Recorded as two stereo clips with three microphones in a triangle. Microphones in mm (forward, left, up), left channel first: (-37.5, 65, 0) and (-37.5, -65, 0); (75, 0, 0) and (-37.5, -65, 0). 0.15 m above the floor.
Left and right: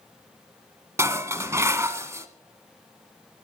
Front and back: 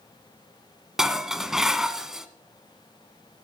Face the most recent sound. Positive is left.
turn(degrees=-70)